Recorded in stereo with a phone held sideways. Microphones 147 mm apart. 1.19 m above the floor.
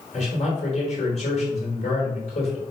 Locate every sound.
0.1 s a man speaking: 50° left (ahead or behind), 4.5 m